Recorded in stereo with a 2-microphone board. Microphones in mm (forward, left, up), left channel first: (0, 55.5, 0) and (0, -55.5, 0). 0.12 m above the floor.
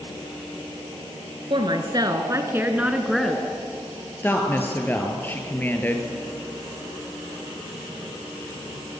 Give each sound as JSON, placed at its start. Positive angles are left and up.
{"t": 1.5, "sound": "a woman speaking", "side_deg": -45, "distance_m": 2.0}
{"t": 4.2, "sound": "a woman speaking", "side_deg": 15, "distance_m": 2.5}